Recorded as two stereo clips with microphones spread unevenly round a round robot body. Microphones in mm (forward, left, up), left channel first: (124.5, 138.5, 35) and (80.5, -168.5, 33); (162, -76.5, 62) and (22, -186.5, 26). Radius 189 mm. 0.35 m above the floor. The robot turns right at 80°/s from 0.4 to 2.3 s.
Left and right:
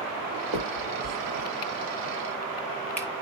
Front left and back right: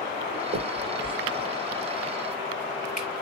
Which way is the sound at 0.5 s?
145° right.